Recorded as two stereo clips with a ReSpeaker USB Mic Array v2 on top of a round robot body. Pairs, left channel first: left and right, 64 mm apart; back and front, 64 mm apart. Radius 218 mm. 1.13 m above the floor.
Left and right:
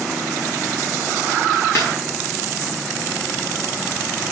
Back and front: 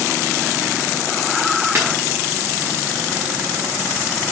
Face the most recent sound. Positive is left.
turn(degrees=45)